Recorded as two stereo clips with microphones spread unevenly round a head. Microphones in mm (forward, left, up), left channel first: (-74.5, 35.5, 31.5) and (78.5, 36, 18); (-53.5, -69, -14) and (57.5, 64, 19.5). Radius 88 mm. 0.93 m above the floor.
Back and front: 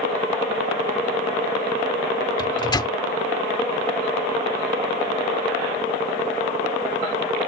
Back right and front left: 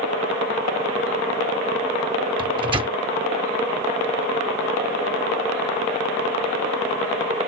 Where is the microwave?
115° left.